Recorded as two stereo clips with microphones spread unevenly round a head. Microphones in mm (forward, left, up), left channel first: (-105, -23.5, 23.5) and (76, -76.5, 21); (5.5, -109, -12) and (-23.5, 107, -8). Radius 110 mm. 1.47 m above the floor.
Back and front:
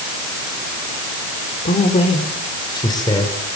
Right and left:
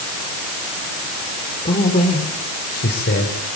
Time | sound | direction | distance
1.6 | a man speaking | 145° right | 3.5 m